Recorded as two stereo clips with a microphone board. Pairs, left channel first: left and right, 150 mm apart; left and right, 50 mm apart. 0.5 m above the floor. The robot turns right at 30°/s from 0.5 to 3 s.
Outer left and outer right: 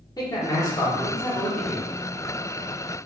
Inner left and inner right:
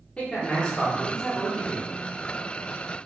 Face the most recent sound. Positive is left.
turn(degrees=-160)